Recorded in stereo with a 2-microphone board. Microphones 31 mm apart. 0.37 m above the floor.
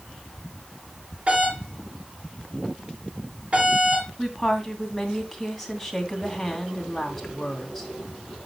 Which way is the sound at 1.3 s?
35° right (ahead or behind).